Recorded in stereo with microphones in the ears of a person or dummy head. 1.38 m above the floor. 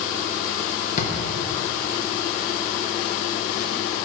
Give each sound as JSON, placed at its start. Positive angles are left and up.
{"t": 1.0, "sound": "a drawer", "side_deg": 45, "distance_m": 1.0}